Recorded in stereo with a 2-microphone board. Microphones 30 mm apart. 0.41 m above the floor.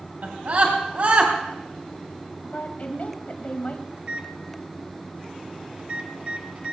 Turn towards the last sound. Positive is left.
turn(degrees=-50)  # may be behind; listen again after turning